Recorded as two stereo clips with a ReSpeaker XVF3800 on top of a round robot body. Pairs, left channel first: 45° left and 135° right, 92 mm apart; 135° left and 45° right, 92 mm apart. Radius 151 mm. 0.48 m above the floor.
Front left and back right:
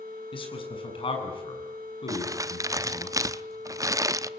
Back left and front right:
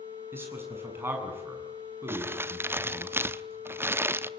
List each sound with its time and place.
0.3 s a man speaking: 20° left, 7.5 m
2.1 s crumpling: 100° right, 1.1 m